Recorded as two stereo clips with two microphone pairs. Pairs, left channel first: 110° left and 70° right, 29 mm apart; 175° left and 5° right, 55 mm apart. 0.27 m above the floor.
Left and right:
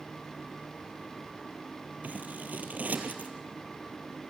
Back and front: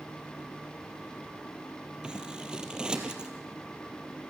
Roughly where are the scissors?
Right.